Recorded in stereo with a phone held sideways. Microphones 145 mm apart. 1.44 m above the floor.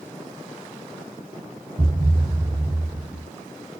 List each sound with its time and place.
1.8 s a thud: 55° right (ahead or behind), 2.5 m